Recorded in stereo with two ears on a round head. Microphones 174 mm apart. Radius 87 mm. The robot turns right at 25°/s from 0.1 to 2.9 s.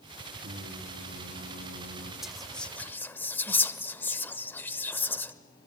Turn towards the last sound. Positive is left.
turn(degrees=10)  # may be behind; listen again after turning